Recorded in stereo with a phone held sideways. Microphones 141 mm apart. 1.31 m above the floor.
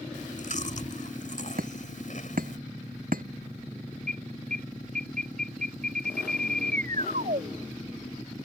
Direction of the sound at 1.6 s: 85° right.